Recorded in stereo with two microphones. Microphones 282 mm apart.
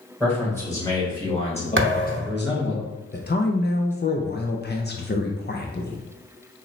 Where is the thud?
45° right (ahead or behind), 0.9 m.